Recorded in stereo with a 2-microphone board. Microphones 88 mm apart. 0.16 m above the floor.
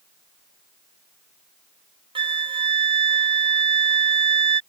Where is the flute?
75° right (ahead or behind).